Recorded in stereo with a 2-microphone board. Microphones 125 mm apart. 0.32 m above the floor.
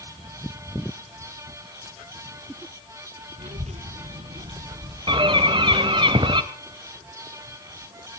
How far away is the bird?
About 1.2 m.